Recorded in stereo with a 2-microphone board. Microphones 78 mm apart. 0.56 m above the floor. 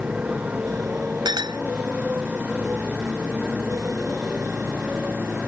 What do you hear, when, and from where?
0.0 s a motorcycle: 15° right (ahead or behind); by 5.5 s 20° right (ahead or behind)
1.2 s a clink: 70° right (ahead or behind)